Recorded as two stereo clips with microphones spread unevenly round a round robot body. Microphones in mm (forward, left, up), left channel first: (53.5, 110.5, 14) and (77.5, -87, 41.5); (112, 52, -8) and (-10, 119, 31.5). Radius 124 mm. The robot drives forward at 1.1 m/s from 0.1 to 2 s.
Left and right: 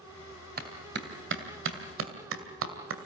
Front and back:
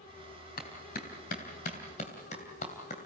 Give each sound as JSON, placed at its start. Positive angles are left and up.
{"t": 0.6, "sound": "a clap", "azimuth_deg": -45, "distance_m": 3.0}